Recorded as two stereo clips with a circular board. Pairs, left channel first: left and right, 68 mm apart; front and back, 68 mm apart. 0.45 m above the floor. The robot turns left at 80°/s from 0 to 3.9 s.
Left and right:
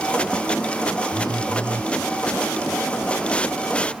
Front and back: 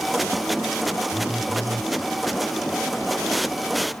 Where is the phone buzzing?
95° right; by 1.9 s 160° right.